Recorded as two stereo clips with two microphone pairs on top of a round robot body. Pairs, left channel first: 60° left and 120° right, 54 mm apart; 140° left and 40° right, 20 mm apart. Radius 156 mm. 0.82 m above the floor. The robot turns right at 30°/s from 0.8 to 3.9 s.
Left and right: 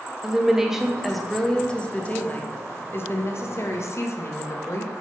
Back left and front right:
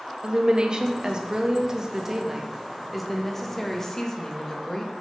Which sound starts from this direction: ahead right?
A woman speaking, at 0.2 s.